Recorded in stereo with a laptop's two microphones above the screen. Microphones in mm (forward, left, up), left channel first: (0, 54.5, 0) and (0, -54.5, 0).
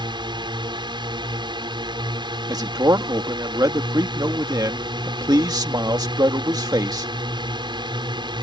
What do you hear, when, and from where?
0.0 s a drone: 45° right (ahead or behind)
2.5 s a man speaking: 40° right (ahead or behind)